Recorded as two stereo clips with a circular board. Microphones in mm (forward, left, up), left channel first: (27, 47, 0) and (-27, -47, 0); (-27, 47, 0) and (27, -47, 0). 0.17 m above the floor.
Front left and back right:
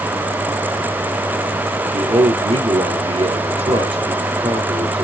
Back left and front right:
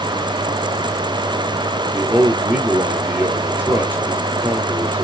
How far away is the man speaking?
About 3 m.